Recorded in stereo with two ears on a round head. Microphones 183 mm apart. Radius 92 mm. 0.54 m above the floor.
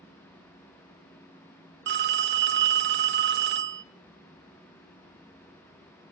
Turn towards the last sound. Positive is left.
turn(degrees=-55)  # may be behind; listen again after turning